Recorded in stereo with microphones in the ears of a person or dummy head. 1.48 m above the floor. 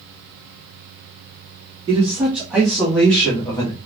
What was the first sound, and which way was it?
A man speaking, 25° right (ahead or behind).